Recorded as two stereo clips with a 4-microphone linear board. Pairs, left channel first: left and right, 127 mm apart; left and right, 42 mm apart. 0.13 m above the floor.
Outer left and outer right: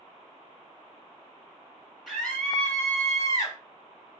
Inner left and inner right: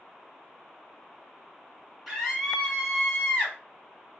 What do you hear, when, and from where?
2.1 s a scream: centre (ahead or behind), 2.5 m; by 3.6 s 30° left (ahead or behind), 2.5 m